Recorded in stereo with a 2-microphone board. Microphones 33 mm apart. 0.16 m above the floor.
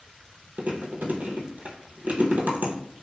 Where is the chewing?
65° right (ahead or behind), 0.8 m.